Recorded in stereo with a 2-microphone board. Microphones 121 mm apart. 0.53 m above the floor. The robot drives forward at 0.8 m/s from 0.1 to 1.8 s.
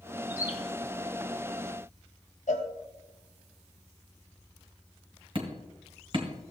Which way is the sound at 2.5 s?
80° left.